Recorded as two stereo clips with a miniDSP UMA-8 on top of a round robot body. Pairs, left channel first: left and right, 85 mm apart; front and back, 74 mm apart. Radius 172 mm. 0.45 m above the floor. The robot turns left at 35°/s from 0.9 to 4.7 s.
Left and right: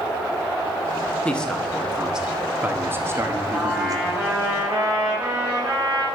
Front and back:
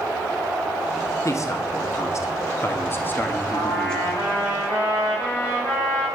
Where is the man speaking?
15° left, 1.8 m; by 4.1 s 85° right, 1.8 m.